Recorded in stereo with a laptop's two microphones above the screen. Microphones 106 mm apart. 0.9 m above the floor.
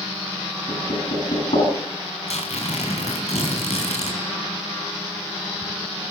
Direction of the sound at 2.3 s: 75° left (ahead or behind).